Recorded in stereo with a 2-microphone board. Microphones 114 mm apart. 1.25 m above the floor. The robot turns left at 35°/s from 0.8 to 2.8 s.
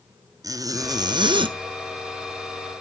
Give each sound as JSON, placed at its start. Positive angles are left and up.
{"t": 0.4, "sound": "a zipper", "side_deg": -30, "distance_m": 0.5}